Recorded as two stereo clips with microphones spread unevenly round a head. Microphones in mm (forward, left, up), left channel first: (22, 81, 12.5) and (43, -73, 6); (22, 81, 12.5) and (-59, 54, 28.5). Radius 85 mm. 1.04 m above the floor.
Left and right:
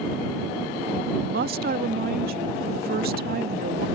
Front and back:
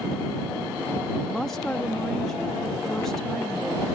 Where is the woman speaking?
65° right.